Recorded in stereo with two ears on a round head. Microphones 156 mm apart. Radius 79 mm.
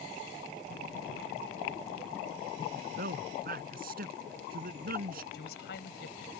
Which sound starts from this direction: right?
A man speaking, at 2.7 s.